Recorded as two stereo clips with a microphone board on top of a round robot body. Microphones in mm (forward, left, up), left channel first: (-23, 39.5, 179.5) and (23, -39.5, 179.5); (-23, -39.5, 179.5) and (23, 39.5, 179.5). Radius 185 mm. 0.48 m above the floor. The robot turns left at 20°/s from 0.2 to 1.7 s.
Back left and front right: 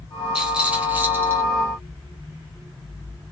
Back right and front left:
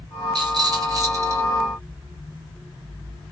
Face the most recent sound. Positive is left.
turn(degrees=-5)